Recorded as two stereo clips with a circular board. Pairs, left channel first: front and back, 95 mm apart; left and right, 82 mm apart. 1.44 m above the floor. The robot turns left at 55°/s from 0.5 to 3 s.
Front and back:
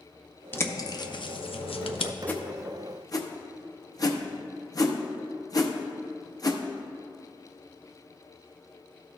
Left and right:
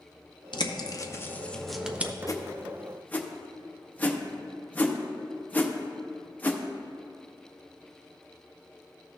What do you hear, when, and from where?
0.5 s a bird: 65° left, 0.6 m; by 2.1 s 20° right, 0.6 m
2.3 s a whoosh: 65° left, 0.7 m; by 6.6 s 25° left, 0.7 m